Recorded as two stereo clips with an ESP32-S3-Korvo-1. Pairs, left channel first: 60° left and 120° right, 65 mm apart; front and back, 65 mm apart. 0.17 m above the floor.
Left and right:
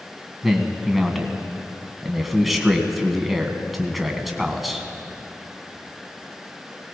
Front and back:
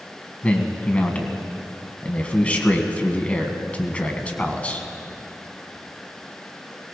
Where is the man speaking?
30° right, 1.4 m.